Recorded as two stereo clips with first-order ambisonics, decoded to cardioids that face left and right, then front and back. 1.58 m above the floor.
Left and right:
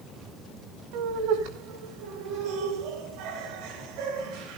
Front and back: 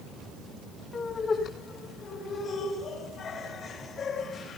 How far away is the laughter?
About 6 m.